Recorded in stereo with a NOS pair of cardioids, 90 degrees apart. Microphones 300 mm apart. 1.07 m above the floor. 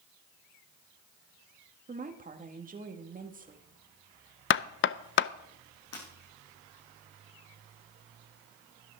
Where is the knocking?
40° left, 0.5 m.